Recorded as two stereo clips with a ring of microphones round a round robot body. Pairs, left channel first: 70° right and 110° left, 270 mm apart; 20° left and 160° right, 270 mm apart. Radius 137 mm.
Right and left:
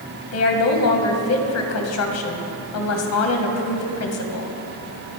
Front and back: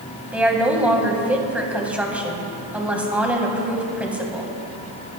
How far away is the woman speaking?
About 2 m.